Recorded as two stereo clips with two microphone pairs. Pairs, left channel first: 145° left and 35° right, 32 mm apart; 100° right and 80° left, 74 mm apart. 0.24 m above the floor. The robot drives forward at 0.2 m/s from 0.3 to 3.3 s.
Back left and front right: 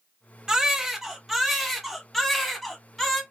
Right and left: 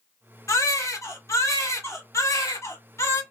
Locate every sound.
0.5 s a baby crying: 95° right, 0.8 m; by 3.2 s 140° right, 1.0 m